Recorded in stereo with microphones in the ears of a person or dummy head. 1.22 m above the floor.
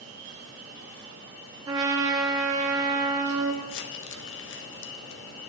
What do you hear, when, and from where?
1.7 s a trumpet: 20° right (ahead or behind), 0.7 m
3.6 s crumpling: 60° left (ahead or behind), 0.7 m